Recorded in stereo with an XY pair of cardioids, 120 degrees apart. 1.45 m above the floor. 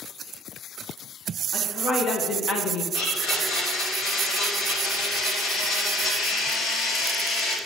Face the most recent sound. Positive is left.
turn(degrees=60)